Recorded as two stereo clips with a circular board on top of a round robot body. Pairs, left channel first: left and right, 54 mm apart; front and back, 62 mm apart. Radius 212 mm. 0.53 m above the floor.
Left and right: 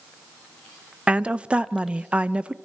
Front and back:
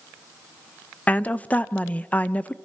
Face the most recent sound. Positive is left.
turn(degrees=-40)